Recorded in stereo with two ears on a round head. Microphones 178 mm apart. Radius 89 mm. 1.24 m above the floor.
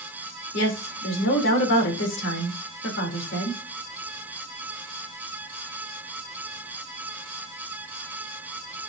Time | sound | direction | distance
0.5 | a woman speaking | 60° left (ahead or behind) | 3.5 m